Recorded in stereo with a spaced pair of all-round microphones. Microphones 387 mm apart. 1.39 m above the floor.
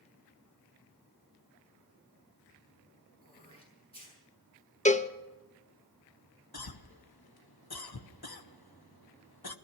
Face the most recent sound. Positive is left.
turn(degrees=70)  # may be behind; listen again after turning